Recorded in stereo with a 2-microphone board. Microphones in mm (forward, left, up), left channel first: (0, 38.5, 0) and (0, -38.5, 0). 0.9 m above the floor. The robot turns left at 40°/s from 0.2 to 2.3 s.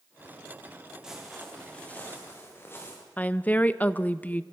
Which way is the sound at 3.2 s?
20° left (ahead or behind).